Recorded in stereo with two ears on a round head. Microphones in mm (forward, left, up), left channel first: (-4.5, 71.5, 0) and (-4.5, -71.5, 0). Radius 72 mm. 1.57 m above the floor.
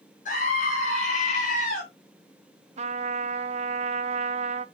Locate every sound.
0.2 s a scream: 50° left (ahead or behind), 6 m
2.8 s a trumpet: 40° right (ahead or behind), 0.8 m